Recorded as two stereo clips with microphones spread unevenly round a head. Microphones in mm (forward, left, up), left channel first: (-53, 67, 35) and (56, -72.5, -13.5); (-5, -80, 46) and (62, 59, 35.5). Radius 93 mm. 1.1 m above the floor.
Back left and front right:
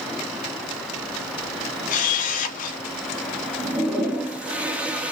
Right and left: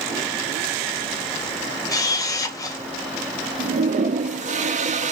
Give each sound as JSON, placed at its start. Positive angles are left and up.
{"t": 1.9, "sound": "a camera shutter", "azimuth_deg": 180, "distance_m": 0.6}
{"t": 3.6, "sound": "a toilet flushing", "azimuth_deg": 25, "distance_m": 0.5}